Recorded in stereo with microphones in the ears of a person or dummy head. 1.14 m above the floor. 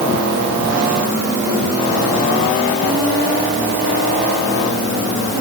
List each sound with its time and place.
Only background noise.